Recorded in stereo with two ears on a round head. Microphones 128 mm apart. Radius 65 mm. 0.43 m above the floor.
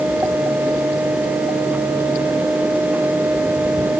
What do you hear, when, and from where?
Only background noise.